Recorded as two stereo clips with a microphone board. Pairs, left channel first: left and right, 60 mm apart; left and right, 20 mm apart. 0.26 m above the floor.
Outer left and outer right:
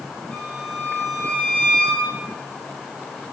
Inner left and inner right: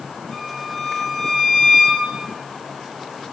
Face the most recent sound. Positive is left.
turn(degrees=10)  # may be behind; listen again after turning